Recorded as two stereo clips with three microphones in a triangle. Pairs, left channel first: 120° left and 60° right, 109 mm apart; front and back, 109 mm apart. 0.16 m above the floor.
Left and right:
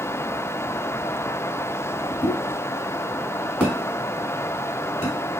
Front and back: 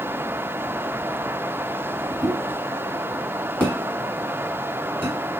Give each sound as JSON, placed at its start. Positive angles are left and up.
{"t": 2.2, "sound": "a pop", "azimuth_deg": -15, "distance_m": 1.4}